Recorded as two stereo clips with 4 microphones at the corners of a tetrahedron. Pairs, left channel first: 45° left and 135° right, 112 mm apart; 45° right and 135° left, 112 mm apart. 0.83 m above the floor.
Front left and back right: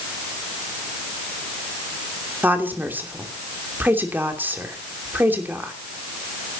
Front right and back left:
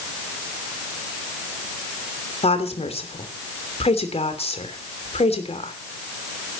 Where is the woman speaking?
65° right, 3 m.